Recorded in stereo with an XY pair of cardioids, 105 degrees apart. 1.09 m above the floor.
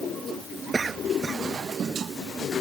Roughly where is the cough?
Ahead right.